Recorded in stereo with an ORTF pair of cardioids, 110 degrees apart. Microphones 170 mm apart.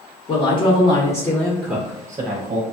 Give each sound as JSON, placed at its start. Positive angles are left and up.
{"t": 0.3, "sound": "a woman speaking", "azimuth_deg": 35, "distance_m": 1.2}